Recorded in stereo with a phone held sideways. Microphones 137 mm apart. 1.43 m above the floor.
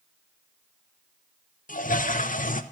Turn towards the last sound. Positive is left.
turn(degrees=75)  # may be behind; listen again after turning